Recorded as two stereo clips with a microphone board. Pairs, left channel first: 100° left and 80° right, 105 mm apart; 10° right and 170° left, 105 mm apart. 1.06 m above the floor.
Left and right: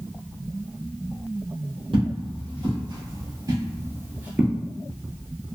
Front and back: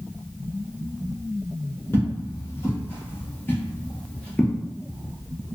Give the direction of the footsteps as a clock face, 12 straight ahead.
2 o'clock.